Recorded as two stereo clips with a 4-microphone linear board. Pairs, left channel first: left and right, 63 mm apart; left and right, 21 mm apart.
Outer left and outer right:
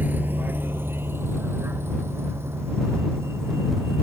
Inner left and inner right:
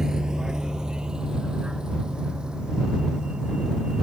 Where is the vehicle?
30° right (ahead or behind); by 4.0 s 45° right (ahead or behind).